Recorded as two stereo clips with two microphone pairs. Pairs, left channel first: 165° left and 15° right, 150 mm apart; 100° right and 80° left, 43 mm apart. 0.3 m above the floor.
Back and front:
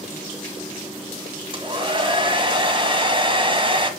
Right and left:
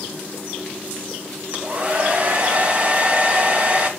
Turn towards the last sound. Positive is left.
turn(degrees=30)